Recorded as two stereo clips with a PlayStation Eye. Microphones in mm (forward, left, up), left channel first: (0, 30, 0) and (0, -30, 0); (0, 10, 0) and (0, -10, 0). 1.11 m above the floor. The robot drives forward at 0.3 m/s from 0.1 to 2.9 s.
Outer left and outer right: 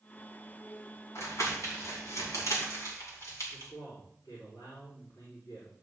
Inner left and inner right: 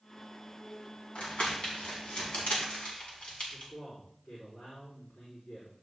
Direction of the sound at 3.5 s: 75° left (ahead or behind).